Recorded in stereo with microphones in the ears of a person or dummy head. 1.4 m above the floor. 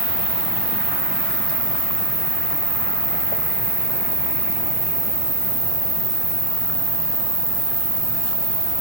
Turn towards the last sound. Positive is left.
turn(degrees=40)  # may be behind; listen again after turning